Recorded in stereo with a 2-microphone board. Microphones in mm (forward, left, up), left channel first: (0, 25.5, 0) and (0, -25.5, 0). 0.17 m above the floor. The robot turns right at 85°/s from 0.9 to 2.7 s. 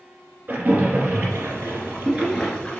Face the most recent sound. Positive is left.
turn(degrees=25)  # may be behind; listen again after turning